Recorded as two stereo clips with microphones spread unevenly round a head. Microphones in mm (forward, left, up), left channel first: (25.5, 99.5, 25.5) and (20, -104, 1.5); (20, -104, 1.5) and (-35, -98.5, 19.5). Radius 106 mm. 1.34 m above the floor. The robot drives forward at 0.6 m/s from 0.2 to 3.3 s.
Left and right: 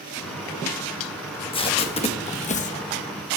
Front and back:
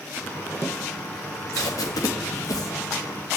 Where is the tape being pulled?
25° left, 2 m; by 2.8 s 35° left, 1.4 m.